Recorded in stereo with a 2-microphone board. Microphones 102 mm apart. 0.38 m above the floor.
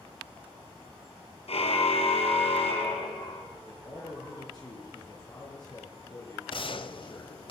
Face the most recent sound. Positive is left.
turn(degrees=55)  # may be behind; listen again after turning